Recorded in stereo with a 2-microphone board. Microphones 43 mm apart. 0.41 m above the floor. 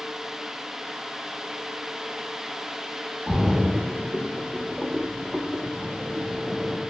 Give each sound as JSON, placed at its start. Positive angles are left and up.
{"t": 3.3, "sound": "a splash", "side_deg": -20, "distance_m": 0.6}